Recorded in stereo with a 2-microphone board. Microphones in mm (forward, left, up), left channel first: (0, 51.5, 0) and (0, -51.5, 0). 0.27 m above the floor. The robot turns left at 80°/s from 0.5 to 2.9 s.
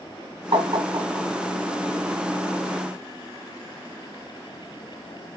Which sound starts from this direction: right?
Tapping, at 0.5 s.